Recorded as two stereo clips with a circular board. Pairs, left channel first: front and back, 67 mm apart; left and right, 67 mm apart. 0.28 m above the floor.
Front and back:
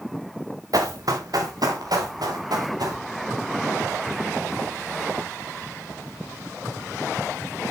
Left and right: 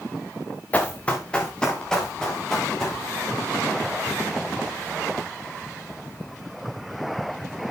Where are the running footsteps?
155° left, 2 m; by 3.0 s 175° left, 4.5 m.